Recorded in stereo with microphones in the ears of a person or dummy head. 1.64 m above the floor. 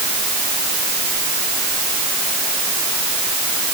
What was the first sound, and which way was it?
Only background noise.